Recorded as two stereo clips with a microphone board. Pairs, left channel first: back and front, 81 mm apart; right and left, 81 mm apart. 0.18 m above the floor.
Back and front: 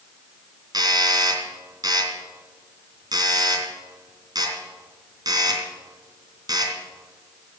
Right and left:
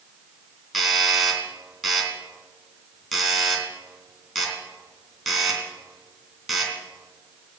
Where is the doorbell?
Straight ahead, 3 m.